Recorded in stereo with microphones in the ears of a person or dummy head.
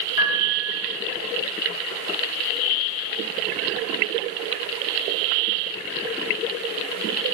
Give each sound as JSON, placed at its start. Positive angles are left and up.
{"t": 0.2, "sound": "a piano", "side_deg": 55, "distance_m": 4.0}